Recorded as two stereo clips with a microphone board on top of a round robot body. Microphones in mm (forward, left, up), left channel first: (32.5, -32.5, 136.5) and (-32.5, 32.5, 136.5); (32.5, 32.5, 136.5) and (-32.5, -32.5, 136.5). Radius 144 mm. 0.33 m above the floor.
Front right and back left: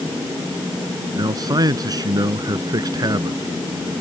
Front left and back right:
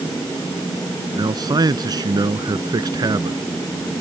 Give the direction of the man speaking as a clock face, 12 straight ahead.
6 o'clock.